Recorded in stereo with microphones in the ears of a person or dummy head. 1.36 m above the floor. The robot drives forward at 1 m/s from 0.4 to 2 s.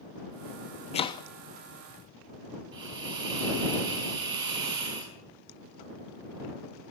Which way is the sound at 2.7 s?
25° right (ahead or behind).